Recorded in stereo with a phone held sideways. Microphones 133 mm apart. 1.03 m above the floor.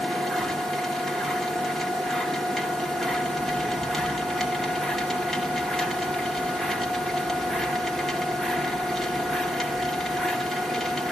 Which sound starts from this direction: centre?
A machine running, at 0.0 s.